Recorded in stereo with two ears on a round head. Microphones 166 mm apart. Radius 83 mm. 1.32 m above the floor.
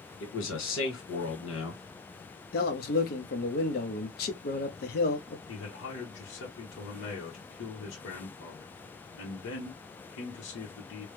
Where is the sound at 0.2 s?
75° left (ahead or behind), 2 m.